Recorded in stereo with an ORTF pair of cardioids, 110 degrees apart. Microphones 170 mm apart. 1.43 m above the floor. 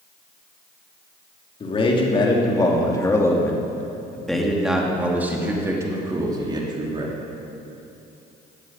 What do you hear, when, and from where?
1.6 s a man speaking: 35° left, 3 m; by 7.2 s 30° right, 3 m